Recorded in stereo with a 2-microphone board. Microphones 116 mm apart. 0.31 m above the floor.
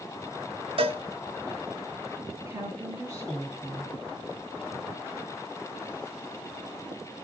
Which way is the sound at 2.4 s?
25° right (ahead or behind).